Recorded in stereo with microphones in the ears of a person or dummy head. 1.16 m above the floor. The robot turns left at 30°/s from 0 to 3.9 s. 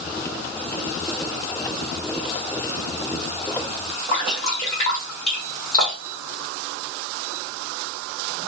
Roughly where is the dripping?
Left.